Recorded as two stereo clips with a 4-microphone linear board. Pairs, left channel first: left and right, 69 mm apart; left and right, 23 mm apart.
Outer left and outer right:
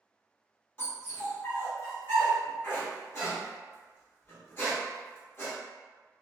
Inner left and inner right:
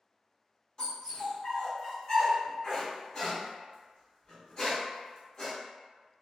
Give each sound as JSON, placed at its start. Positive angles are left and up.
{"t": 0.8, "sound": "a dog barking", "side_deg": 35, "distance_m": 1.5}